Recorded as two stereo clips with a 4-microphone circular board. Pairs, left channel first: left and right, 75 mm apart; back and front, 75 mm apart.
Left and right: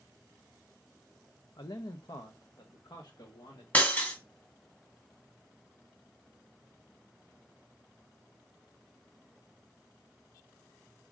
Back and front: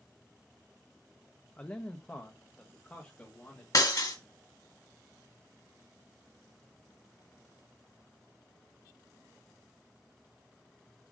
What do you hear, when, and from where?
1.6 s a man speaking: 110° left, 0.6 m; by 3.6 s 115° left, 1.9 m
3.7 s breaking glass: 155° left, 1.7 m